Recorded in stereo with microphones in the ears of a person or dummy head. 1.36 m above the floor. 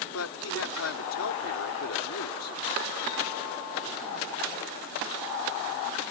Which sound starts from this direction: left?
A man speaking, at 0.1 s.